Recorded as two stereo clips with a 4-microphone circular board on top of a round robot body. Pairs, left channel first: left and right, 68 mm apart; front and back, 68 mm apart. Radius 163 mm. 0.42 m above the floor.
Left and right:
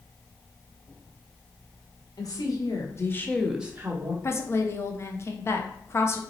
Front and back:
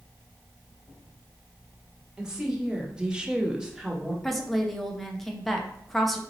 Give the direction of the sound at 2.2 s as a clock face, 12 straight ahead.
9 o'clock.